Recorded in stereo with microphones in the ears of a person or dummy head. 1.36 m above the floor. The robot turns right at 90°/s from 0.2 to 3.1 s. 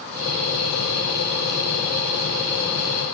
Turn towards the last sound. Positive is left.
No sound to turn to.